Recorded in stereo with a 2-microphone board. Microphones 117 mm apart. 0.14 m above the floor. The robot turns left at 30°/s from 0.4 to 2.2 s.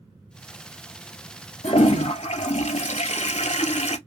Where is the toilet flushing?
65° left (ahead or behind), 0.5 m; by 4.0 s 75° left (ahead or behind), 0.5 m.